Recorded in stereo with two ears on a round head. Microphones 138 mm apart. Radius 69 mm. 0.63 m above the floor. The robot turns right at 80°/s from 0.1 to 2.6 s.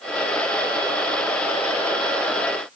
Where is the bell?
I don't hear a bell.